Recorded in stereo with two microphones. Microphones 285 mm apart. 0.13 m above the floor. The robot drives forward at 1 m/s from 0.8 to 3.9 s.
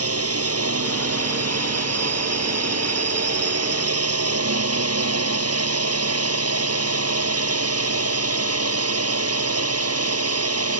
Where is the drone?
55° right (ahead or behind); by 10.8 s 60° right (ahead or behind).